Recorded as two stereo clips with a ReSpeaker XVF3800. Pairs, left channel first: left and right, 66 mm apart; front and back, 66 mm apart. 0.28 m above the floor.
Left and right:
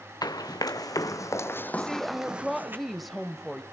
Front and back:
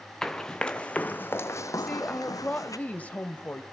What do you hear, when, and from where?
0.2 s running footsteps: 80° left, 1.4 m; by 2.8 s 35° right, 1.0 m
1.8 s a woman speaking: straight ahead, 1.0 m